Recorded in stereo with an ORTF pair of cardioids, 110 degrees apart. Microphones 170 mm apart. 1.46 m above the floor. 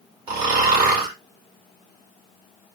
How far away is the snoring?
About 2 m.